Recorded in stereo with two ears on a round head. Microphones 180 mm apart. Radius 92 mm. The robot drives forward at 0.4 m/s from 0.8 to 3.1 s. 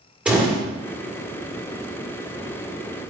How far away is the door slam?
About 1.8 m.